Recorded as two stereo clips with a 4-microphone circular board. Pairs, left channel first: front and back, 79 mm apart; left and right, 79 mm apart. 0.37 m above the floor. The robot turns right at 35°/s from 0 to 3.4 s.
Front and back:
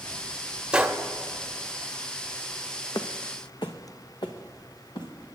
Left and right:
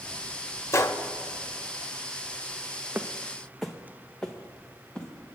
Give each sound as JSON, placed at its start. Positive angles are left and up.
{"t": 0.7, "sound": "a gunshot", "azimuth_deg": 105, "distance_m": 0.6}
{"t": 3.0, "sound": "footsteps", "azimuth_deg": -25, "distance_m": 0.8}